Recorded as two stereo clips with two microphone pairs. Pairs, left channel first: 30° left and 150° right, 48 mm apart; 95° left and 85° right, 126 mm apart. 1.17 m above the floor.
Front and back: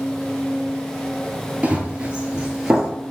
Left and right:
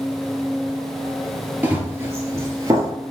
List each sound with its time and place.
1.6 s running footsteps: 140° right, 1.2 m; by 2.9 s 70° right, 1.3 m